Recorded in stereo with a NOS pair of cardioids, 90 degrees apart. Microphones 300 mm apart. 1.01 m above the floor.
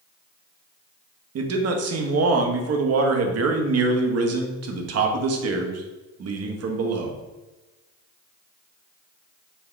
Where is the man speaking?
55° right, 0.9 m.